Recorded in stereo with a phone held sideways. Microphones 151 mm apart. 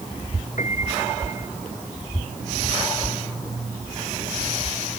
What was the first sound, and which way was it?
A piano, 55° left (ahead or behind).